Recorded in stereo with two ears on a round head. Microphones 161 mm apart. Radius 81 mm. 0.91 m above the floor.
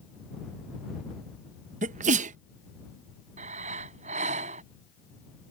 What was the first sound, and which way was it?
A sneeze, 45° right (ahead or behind).